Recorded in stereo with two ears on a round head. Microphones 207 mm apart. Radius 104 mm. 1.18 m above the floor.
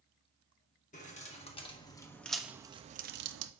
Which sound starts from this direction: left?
Keys jangling, at 0.9 s.